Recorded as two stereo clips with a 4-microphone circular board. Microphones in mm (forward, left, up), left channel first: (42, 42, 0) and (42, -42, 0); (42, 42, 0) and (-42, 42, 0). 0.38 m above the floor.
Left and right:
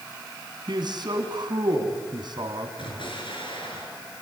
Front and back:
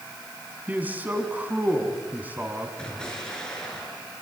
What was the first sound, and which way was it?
A man speaking, 110° right.